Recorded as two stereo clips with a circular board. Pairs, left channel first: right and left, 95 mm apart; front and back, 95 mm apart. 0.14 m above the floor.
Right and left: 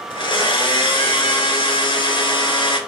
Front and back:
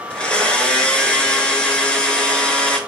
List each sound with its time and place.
0.1 s a blender: 80° right, 0.7 m